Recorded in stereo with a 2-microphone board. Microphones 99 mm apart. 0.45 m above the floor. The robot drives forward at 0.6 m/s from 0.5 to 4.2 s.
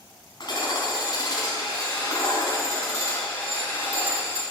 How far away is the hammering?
About 3.5 m.